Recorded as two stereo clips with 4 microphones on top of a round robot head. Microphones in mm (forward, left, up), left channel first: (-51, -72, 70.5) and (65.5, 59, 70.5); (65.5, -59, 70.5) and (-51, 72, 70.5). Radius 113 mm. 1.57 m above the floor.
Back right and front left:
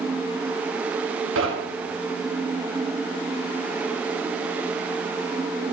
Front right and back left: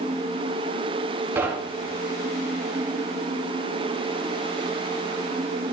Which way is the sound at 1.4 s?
55° left.